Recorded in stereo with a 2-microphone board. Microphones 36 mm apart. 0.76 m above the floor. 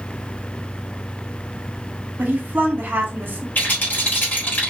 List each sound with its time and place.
2.2 s a woman speaking: 65° right (ahead or behind), 1.4 m
3.5 s a rattle: 55° left (ahead or behind), 2.5 m